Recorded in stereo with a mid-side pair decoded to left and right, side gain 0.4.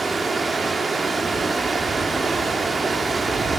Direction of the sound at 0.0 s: 35° right.